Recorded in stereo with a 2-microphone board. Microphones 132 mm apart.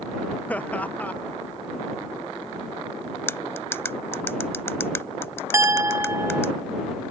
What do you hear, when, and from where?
0.5 s laughter: 10° left (ahead or behind)
3.3 s cutlery clinking: 20° left (ahead or behind)
5.5 s a clink: 20° right (ahead or behind)